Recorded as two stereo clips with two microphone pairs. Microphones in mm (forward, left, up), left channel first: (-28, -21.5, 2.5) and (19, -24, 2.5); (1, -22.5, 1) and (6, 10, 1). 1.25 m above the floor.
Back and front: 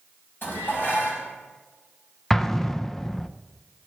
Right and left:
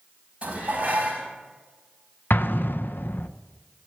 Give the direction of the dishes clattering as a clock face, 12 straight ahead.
7 o'clock.